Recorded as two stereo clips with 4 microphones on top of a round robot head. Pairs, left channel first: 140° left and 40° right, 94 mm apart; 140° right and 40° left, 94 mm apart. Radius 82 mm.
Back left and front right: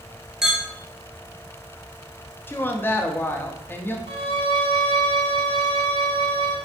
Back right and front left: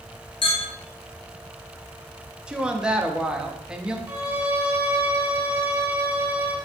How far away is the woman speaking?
About 0.7 m.